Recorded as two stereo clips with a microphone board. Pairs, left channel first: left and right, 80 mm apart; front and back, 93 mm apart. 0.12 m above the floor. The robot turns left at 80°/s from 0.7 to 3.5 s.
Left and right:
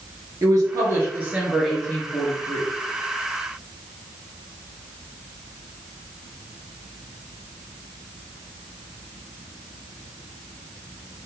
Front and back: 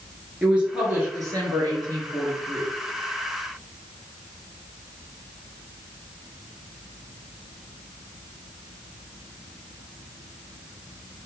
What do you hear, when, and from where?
0.4 s a woman speaking: 105° right, 2.0 m; by 2.7 s 100° left, 2.0 m